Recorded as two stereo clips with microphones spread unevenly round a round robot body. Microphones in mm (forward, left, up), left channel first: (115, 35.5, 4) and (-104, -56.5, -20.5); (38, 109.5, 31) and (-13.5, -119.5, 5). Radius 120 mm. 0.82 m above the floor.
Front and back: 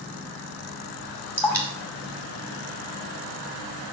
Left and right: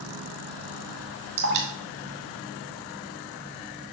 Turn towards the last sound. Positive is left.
turn(degrees=-60)